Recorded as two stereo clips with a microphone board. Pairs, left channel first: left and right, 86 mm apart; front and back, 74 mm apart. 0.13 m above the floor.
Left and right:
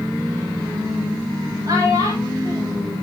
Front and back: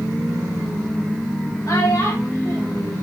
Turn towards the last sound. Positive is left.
turn(degrees=-40)